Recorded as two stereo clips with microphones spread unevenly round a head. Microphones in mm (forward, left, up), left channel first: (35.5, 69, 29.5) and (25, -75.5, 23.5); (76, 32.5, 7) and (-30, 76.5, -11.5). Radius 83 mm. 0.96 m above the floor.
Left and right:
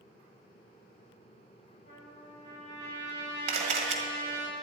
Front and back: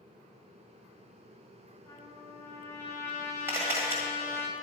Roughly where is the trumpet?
Ahead left.